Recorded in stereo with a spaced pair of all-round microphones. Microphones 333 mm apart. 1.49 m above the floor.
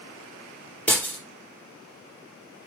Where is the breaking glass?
5° left (ahead or behind), 3.5 m.